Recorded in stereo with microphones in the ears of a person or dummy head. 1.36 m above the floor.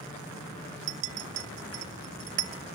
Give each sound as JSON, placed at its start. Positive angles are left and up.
{"t": 0.9, "sound": "a clink", "side_deg": -45, "distance_m": 0.8}